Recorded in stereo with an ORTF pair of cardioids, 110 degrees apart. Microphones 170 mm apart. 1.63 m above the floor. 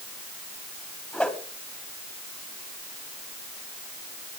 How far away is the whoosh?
About 3 m.